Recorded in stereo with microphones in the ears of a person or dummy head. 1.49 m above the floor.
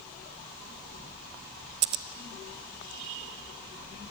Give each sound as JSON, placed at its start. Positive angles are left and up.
{"t": 1.8, "sound": "scissors", "side_deg": -30, "distance_m": 0.9}